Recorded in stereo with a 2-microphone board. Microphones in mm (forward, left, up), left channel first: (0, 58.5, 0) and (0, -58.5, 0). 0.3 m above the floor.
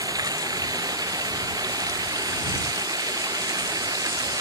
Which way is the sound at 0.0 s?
30° right (ahead or behind).